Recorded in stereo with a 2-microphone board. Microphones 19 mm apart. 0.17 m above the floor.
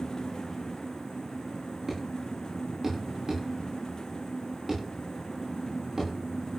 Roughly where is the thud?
Centre.